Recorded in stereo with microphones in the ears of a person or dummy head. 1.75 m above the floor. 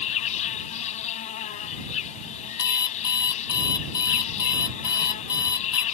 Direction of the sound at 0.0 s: 30° left (ahead or behind).